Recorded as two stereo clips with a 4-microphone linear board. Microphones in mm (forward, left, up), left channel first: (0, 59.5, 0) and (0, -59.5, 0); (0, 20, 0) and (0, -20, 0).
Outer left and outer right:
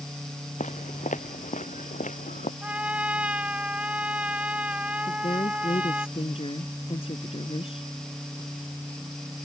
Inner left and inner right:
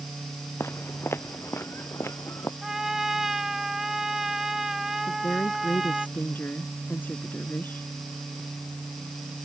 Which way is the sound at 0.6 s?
80° left.